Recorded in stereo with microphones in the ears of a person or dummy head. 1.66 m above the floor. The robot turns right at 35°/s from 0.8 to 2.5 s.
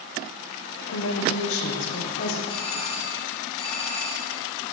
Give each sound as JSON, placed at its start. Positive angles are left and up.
{"t": 0.9, "sound": "a woman speaking", "azimuth_deg": 90, "distance_m": 1.4}
{"t": 2.5, "sound": "a doorbell", "side_deg": 30, "distance_m": 1.2}